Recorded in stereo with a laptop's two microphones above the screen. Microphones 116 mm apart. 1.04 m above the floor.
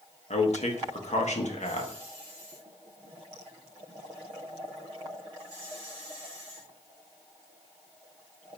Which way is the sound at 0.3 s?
65° left (ahead or behind).